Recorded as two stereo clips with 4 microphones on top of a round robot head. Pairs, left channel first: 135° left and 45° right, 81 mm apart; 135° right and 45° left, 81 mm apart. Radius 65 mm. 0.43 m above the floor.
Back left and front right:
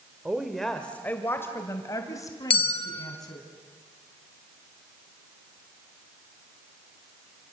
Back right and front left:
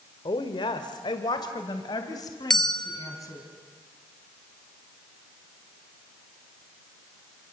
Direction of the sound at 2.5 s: 140° left.